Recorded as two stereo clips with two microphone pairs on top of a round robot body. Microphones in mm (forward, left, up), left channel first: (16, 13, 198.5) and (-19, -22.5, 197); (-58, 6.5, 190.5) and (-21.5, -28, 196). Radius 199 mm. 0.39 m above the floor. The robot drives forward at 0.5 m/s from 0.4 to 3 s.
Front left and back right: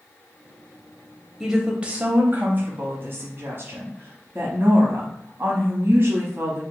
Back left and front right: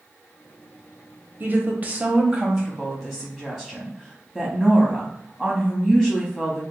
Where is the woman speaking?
60° right, 1.0 m; by 6.6 s 145° right, 1.1 m.